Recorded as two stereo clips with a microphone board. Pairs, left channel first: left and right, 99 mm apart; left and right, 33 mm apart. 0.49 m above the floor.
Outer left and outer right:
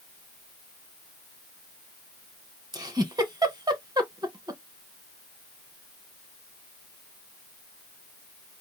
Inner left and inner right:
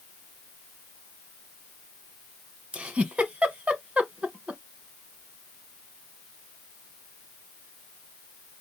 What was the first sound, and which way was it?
A giggle, 40° right (ahead or behind).